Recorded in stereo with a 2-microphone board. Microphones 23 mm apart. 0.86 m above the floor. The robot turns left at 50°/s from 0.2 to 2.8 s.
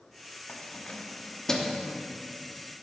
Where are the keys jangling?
70° left (ahead or behind), 0.9 m; by 1.8 s 5° left (ahead or behind), 0.9 m.